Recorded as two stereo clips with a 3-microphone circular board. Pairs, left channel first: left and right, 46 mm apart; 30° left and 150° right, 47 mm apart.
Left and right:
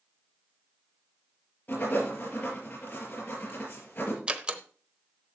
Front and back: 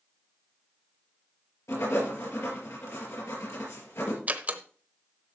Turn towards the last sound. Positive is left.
turn(degrees=-140)